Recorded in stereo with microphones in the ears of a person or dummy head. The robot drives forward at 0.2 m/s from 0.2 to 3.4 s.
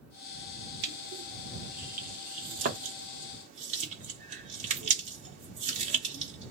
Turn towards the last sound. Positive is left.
turn(degrees=-35)  # may be behind; listen again after turning